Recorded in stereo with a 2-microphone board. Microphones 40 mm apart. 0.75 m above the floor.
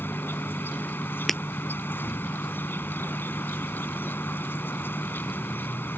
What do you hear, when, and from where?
0.0 s an insect: 70° left (ahead or behind)
1.3 s breaking glass: centre (ahead or behind)